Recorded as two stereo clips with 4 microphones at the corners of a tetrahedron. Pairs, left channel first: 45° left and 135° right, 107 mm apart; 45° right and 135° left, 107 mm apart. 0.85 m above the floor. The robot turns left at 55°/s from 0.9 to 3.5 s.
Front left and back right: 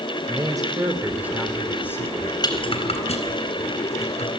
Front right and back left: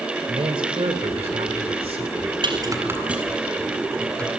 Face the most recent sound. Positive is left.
turn(degrees=35)